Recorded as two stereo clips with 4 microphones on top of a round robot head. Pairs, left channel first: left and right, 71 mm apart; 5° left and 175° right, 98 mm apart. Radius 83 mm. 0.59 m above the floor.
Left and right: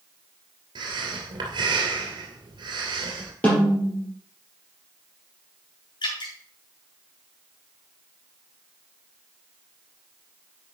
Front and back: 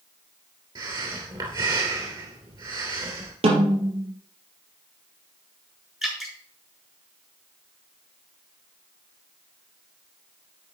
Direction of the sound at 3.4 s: 165° left.